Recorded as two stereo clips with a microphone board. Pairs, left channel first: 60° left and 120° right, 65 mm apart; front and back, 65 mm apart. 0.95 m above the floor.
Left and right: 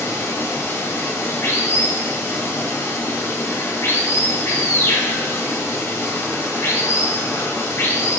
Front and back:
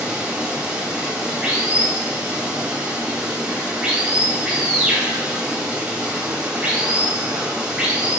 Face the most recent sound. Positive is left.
turn(degrees=110)